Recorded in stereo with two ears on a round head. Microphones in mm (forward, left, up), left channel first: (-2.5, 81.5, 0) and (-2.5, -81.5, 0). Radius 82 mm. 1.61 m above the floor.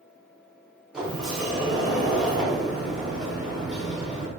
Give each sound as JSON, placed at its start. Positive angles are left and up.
{"t": 0.9, "sound": "a sliding door", "side_deg": -5, "distance_m": 0.8}